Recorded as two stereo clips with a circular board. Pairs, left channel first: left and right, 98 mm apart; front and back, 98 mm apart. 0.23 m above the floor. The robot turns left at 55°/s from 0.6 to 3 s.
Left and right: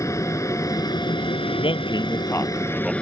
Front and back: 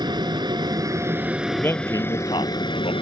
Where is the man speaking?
75° left; by 2.9 s 5° right.